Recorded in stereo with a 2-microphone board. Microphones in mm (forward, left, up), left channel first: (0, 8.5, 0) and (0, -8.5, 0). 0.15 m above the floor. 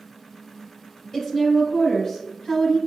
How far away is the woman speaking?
About 1.7 m.